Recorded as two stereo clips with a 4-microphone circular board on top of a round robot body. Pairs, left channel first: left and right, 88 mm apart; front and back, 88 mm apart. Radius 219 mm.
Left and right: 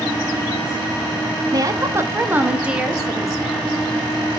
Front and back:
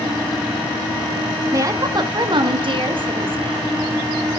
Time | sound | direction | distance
1.5 | a woman speaking | 130° right | 1.6 m